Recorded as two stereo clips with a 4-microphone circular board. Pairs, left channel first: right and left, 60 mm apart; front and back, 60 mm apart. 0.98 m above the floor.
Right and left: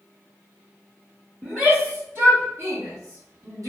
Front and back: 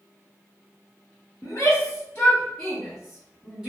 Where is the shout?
25° left, 1.0 m; by 3.7 s 105° left, 1.4 m.